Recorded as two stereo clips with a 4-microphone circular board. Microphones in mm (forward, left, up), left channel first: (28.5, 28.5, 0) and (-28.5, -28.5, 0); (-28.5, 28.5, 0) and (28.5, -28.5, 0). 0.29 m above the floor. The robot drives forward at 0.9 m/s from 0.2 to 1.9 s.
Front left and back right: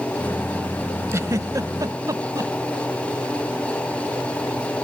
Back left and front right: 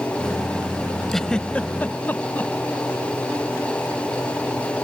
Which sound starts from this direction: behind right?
A giggle, at 1.1 s.